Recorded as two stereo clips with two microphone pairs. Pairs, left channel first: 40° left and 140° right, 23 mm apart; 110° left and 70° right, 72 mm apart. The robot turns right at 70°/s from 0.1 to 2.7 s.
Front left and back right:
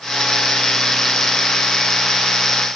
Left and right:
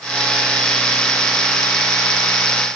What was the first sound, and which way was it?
Only background noise.